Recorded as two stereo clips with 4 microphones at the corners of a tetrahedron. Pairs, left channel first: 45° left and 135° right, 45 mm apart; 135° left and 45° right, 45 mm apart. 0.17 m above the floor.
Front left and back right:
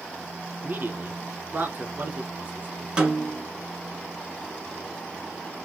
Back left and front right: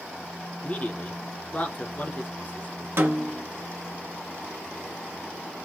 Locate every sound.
0.6 s a man speaking: 175° right, 1.7 m
3.0 s a snare drum: 65° right, 1.6 m